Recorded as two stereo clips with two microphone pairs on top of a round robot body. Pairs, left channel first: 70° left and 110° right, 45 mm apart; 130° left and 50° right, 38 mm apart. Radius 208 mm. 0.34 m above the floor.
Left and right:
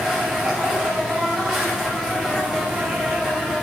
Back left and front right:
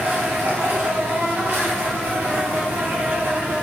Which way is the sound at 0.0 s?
30° right.